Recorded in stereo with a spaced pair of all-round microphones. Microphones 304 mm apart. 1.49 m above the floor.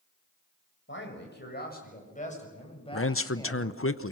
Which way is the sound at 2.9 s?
45° left (ahead or behind).